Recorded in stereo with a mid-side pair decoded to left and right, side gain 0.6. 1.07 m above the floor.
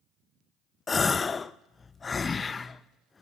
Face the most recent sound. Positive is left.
turn(degrees=25)